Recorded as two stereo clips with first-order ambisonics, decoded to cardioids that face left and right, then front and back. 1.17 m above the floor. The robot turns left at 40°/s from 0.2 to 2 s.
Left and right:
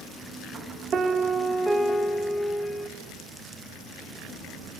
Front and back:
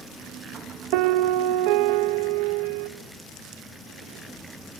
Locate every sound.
0.9 s a piano: 155° right, 1.2 m; by 2.9 s 160° left, 1.2 m